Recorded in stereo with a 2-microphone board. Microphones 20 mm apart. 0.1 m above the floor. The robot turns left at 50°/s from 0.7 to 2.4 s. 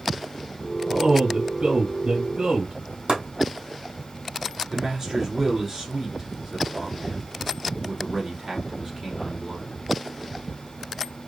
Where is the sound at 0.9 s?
45° right, 2.5 m; by 2.7 s 125° right, 2.5 m.